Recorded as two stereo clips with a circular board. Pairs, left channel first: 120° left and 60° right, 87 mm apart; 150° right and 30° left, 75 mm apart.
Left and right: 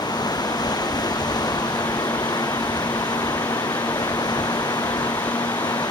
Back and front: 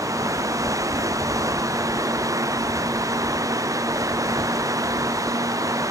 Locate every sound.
0.0 s running water: 80° left